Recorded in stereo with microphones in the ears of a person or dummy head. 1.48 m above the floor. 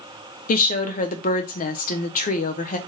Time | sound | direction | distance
0.5 | a woman speaking | 45° left (ahead or behind) | 0.6 m